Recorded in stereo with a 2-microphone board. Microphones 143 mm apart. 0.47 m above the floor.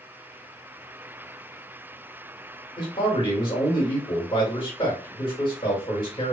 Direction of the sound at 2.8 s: 40° left (ahead or behind).